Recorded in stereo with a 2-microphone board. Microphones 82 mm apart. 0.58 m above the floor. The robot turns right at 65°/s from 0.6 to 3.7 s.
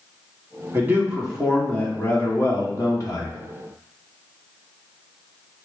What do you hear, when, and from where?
0.7 s a man speaking: 50° right, 1.5 m; by 3.4 s 120° left, 1.5 m